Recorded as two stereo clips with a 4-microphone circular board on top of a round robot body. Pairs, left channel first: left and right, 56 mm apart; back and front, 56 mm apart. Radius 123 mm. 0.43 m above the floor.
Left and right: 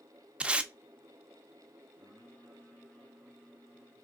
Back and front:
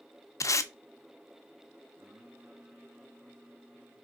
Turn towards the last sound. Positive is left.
turn(degrees=35)